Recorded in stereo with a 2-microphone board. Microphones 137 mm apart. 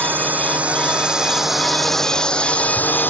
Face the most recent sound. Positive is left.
turn(degrees=15)  # may be behind; listen again after turning